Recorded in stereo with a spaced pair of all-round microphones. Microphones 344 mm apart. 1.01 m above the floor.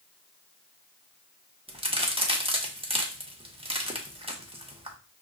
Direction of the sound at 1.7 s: 15° right (ahead or behind).